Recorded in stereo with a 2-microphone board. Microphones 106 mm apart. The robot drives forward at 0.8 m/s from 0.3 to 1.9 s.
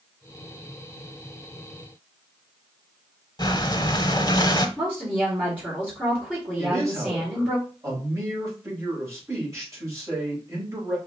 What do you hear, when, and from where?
3.4 s breathing: 40° left (ahead or behind), 0.7 m
4.8 s a woman speaking: 10° right (ahead or behind), 2 m
6.6 s a man speaking: 30° right (ahead or behind), 3 m